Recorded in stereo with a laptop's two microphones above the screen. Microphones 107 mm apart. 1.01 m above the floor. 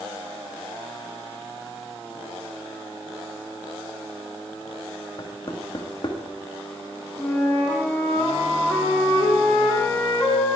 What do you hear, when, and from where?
5.2 s knocking: 45° left (ahead or behind), 1.1 m
7.2 s a flute: 15° left (ahead or behind), 2.5 m